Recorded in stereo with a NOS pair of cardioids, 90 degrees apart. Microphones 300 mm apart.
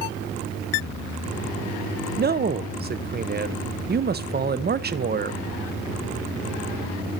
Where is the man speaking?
30° right, 0.8 m.